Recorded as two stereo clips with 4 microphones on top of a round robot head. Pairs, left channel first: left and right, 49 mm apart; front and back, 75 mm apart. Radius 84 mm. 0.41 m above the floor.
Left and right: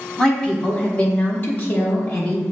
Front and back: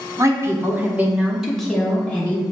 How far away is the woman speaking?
About 1.0 m.